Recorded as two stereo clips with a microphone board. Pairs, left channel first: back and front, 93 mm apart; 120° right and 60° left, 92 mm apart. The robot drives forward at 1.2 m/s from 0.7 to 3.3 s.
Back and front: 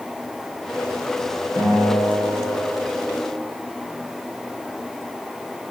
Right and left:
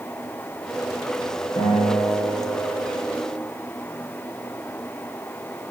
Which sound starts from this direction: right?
A guitar, at 1.6 s.